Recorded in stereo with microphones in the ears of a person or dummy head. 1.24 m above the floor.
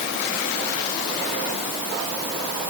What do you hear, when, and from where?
Only background noise.